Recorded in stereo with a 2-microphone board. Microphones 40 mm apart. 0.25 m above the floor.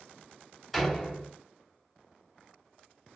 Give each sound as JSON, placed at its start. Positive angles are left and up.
{"t": 0.7, "sound": "a door slam", "side_deg": 0, "distance_m": 0.7}